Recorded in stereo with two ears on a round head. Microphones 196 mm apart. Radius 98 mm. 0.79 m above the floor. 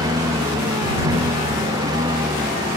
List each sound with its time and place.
0.0 s a lawn mower: 15° right (ahead or behind)